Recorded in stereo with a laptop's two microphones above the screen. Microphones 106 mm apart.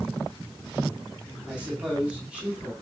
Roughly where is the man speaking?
Centre.